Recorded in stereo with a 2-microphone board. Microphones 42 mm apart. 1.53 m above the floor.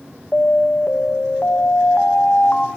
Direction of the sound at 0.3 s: 35° left (ahead or behind).